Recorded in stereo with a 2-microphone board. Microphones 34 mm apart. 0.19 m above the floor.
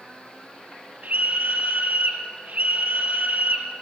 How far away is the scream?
About 5.5 m.